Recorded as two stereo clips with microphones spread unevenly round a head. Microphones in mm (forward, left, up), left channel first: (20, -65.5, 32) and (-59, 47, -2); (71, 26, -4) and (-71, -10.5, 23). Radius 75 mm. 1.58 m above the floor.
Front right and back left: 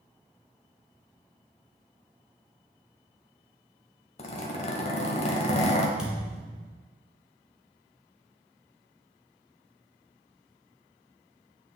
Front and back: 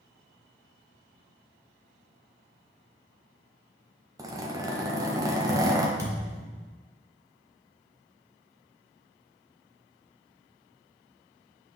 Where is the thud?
135° right, 1.8 m.